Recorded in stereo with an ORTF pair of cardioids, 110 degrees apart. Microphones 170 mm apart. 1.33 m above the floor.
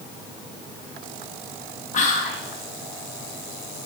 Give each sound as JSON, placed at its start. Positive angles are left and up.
{"t": 1.9, "sound": "whispering", "azimuth_deg": 50, "distance_m": 0.7}